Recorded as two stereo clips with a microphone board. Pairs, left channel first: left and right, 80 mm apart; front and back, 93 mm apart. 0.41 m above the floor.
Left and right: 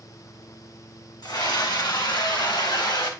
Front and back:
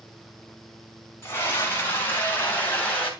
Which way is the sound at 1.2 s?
65° left.